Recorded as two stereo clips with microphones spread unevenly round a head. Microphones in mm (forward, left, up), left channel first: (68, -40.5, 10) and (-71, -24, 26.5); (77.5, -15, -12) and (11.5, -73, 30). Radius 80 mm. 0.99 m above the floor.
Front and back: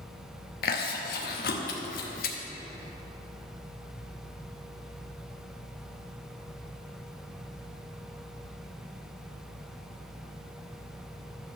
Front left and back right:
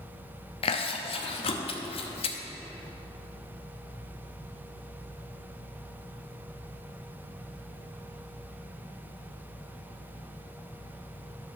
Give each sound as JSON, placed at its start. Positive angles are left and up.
{"t": 0.6, "sound": "chewing", "azimuth_deg": 30, "distance_m": 0.8}